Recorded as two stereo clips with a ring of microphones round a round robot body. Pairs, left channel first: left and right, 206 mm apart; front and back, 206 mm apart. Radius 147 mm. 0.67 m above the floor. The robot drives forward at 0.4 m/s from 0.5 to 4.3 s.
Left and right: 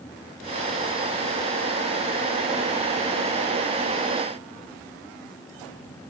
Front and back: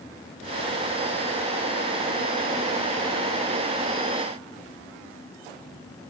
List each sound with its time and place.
Only background noise.